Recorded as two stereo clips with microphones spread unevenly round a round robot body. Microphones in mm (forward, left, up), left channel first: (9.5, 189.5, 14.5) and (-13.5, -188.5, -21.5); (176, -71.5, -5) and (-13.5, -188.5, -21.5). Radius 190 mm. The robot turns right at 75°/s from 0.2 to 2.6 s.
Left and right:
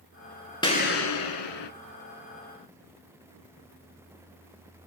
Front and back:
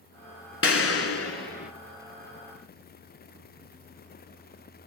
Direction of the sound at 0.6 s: 10° left.